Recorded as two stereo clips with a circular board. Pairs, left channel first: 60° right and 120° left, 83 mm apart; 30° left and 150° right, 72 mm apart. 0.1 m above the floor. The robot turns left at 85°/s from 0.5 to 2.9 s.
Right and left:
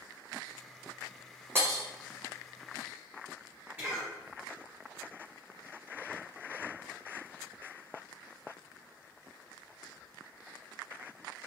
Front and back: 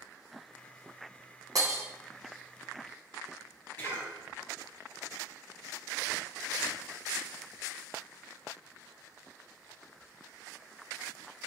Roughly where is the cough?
Ahead left.